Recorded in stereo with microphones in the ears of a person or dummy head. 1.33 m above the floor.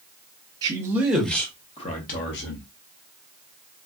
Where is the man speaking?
20° right (ahead or behind), 1.2 m; by 2.7 s 65° left (ahead or behind), 1.3 m.